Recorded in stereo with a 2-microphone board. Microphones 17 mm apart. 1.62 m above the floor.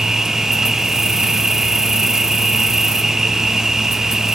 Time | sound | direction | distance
0.0 | an insect | 35° right (ahead or behind) | 1.0 m